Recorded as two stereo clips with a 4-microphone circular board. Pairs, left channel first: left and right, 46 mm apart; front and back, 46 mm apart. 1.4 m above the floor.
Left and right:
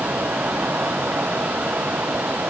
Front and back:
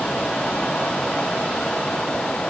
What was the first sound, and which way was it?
Only background noise.